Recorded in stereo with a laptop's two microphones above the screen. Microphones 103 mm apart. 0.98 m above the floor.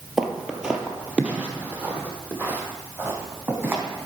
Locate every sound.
0.2 s footsteps: 5° right (ahead or behind), 1.0 m; by 4.1 s 20° right (ahead or behind), 2.5 m